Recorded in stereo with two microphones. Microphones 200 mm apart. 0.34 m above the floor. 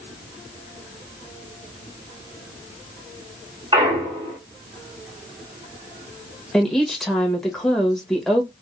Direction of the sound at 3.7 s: 25° right (ahead or behind).